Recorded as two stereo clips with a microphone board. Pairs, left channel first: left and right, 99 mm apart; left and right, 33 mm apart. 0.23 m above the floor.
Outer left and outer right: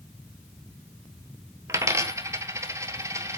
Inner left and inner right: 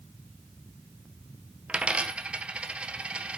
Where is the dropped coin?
30° right (ahead or behind), 1.1 m.